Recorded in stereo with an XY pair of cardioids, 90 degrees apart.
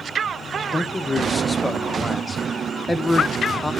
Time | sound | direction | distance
0.7 | a man speaking | 15° left | 0.8 m